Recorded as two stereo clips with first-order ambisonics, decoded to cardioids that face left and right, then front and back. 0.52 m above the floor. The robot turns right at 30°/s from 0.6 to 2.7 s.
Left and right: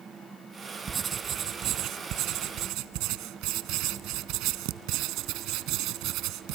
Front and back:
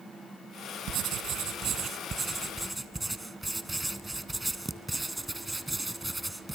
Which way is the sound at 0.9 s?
155° right.